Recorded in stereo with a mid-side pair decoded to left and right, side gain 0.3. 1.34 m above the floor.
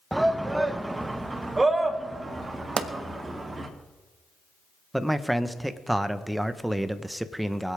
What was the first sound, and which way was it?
A shout, 10° right.